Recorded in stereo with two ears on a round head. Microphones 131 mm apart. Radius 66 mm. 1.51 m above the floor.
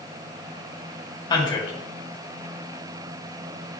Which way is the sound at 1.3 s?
30° left (ahead or behind).